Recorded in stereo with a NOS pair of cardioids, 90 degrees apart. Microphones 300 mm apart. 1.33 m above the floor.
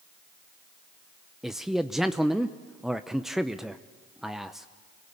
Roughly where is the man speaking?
Ahead.